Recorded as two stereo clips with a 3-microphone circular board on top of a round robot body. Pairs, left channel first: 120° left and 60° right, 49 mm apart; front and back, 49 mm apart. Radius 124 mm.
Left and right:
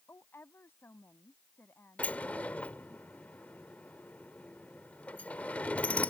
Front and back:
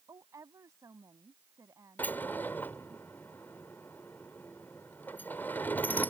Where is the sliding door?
60° left.